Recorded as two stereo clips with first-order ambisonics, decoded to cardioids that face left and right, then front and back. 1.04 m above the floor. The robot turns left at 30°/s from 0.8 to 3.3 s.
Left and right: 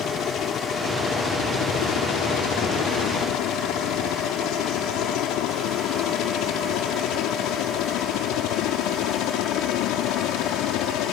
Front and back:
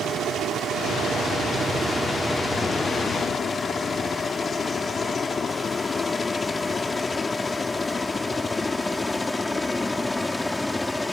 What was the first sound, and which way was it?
A helicopter, 135° left.